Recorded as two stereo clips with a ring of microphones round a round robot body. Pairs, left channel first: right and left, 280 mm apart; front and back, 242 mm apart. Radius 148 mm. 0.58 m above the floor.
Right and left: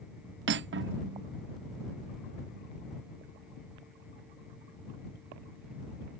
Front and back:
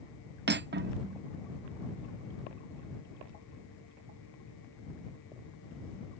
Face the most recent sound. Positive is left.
turn(degrees=135)